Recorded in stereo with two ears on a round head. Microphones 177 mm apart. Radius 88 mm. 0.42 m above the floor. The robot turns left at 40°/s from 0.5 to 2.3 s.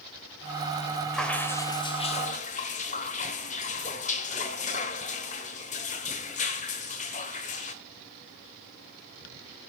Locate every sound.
1.1 s dripping: straight behind, 1.4 m; by 7.8 s 130° left, 1.4 m